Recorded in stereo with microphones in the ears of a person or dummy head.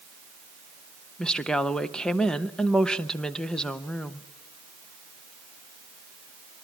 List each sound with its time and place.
1.2 s a woman speaking: 5° left (ahead or behind), 0.6 m